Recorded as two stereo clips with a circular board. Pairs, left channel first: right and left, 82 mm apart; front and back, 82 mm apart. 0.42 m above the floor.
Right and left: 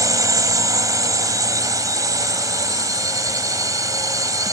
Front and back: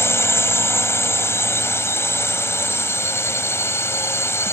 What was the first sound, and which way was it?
A drone, 55° left.